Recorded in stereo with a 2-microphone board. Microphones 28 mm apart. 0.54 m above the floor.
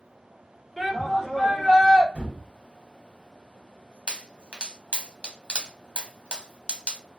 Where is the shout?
Centre (ahead or behind), 1.1 m.